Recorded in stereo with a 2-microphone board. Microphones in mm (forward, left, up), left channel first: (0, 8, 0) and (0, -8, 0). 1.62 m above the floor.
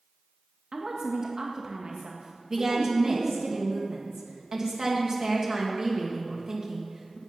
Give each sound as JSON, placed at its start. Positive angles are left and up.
{"t": 0.7, "sound": "a woman speaking", "side_deg": -50, "distance_m": 1.5}
{"t": 2.5, "sound": "a woman speaking", "side_deg": -30, "distance_m": 1.9}